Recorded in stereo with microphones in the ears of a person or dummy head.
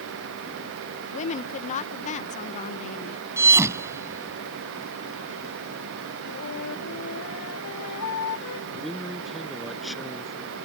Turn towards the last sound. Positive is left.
turn(degrees=0)  # may be behind; listen again after turning